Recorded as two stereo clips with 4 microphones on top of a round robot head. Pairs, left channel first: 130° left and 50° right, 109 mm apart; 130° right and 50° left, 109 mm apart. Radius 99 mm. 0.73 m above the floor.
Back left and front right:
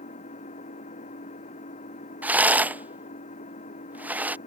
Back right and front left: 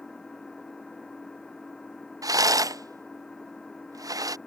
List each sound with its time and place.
0.0 s an engine running: 145° left
2.2 s a rattle: 15° left